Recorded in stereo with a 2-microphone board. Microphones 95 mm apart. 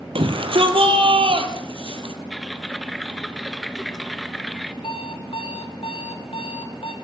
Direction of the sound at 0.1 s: 65° right (ahead or behind).